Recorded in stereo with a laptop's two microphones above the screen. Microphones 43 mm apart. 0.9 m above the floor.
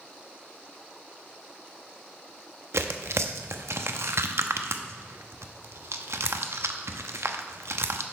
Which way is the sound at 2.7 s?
85° right.